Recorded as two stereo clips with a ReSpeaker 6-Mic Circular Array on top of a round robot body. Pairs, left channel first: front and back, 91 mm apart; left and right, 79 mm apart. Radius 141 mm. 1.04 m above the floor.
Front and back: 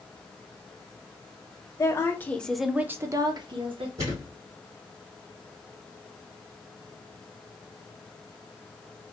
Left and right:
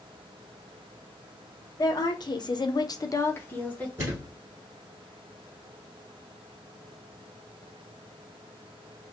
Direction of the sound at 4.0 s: 150° right.